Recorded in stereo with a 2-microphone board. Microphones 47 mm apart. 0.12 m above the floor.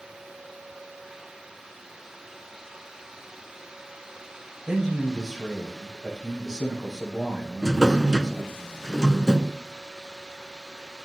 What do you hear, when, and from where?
4.7 s a man speaking: centre (ahead or behind), 6.5 m
7.6 s a drawer: 10° right (ahead or behind), 0.6 m